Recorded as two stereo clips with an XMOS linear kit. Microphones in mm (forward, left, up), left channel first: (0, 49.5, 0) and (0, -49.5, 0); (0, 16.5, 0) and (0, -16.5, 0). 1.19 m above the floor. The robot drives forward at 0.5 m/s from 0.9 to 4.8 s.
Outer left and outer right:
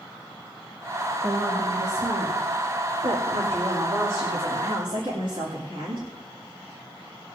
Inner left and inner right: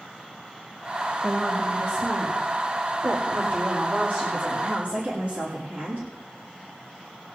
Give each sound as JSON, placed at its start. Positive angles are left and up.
{"t": 1.2, "sound": "a woman speaking", "side_deg": -80, "distance_m": 2.5}